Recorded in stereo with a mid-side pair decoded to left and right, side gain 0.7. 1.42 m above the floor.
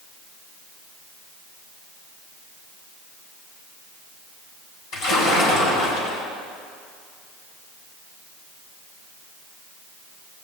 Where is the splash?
65° left, 5 m.